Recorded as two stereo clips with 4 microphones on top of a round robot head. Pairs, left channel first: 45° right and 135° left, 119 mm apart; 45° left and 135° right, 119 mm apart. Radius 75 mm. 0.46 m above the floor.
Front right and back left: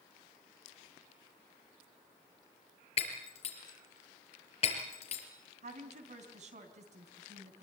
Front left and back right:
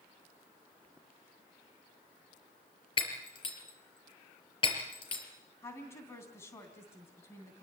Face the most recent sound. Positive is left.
turn(degrees=115)